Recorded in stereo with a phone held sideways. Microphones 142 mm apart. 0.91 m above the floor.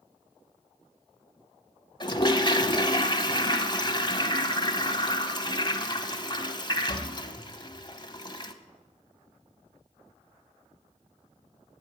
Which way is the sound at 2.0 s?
30° left (ahead or behind).